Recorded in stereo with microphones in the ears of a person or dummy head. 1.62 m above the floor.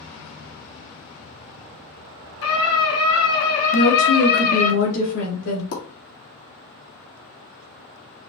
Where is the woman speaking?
80° left, 3 m.